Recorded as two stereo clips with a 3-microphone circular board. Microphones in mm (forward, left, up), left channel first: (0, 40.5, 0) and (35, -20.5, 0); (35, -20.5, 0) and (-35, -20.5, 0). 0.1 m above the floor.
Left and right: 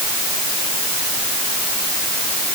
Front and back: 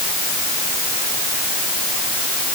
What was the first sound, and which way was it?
Only background noise.